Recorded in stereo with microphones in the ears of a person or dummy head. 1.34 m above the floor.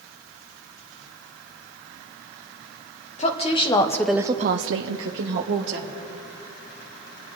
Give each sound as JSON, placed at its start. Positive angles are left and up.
{"t": 3.2, "sound": "a woman speaking", "side_deg": 35, "distance_m": 1.5}